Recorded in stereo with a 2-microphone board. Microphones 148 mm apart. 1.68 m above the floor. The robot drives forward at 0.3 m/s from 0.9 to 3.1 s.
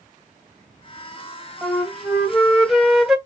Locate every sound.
1.6 s a flute: centre (ahead or behind), 0.9 m